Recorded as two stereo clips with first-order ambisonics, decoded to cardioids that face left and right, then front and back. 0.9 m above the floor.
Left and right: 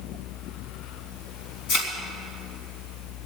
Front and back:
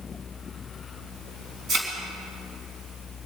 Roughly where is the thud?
Behind left.